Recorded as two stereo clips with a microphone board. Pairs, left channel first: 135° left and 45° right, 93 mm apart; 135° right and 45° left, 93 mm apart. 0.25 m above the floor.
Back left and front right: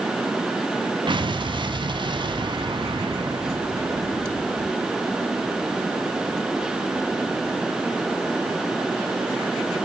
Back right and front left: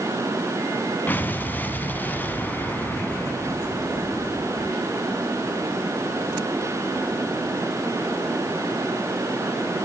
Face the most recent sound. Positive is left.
turn(degrees=-65)